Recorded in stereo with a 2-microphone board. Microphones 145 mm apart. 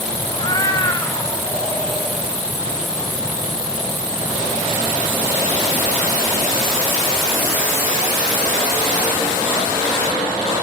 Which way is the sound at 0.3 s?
30° left (ahead or behind).